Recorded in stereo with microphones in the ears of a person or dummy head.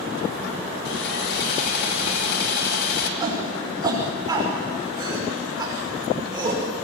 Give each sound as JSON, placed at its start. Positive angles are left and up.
{"t": 0.8, "sound": "sawing", "side_deg": 65, "distance_m": 2.0}
{"t": 3.2, "sound": "a shout", "side_deg": -25, "distance_m": 6.0}